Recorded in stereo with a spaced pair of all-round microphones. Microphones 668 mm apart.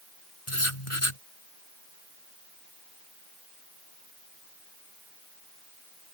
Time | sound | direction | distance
0.5 | writing | 45° left (ahead or behind) | ?